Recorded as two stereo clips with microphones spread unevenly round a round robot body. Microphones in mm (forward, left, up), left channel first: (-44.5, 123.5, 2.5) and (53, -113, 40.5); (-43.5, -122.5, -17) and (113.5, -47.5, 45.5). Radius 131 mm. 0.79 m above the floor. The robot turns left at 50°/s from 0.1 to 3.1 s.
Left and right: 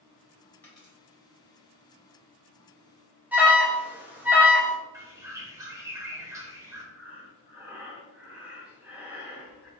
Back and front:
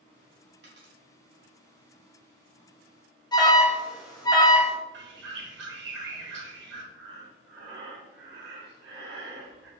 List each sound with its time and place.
0.6 s a dropped coin: 30° left, 1.7 m; by 0.9 s 15° left, 1.7 m
3.3 s an alarm: 160° right, 0.9 m
4.9 s a bird: 15° left, 0.9 m
6.9 s breathing: 25° left, 0.8 m